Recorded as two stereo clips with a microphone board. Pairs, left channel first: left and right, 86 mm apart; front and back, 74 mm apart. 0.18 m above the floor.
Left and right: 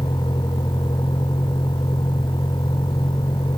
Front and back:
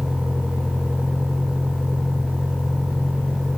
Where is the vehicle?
105° left.